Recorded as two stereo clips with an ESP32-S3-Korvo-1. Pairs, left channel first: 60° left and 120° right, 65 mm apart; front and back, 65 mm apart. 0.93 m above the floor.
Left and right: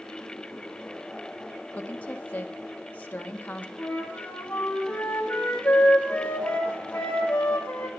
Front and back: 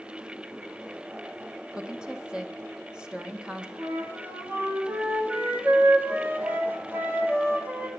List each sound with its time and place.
1.7 s a woman speaking: 115° left, 0.9 m
3.8 s a flute: 125° left, 1.6 m